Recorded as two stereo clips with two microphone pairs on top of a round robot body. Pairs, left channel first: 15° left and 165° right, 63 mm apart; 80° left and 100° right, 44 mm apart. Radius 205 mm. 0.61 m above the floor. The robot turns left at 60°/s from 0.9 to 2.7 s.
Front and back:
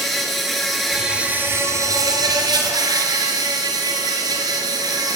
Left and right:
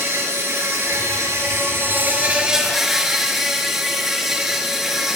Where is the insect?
75° right, 2.5 m; by 5.2 s straight behind, 2.5 m.